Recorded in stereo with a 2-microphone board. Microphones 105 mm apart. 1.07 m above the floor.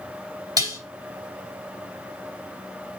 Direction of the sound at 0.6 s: 35° right (ahead or behind).